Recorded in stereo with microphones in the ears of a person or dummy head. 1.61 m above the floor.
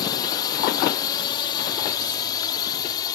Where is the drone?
25° left (ahead or behind); by 3.1 s 20° left (ahead or behind).